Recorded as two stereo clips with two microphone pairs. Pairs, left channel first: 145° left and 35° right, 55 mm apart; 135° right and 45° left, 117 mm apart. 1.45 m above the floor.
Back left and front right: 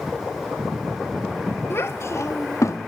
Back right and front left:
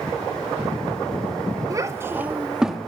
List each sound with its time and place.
1.7 s a child speaking: 105° left, 2 m; by 2.8 s 135° left, 2 m